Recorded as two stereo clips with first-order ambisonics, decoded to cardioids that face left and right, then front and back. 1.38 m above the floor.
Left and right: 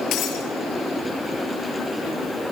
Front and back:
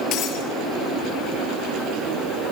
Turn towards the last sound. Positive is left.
turn(degrees=40)